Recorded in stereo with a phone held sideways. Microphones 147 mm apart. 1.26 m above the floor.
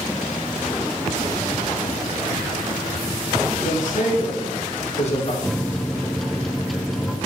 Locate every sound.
3.6 s a man speaking: 65° left (ahead or behind), 2.5 m; by 5.3 s 45° left (ahead or behind), 2 m
5.4 s a microwave: centre (ahead or behind), 0.5 m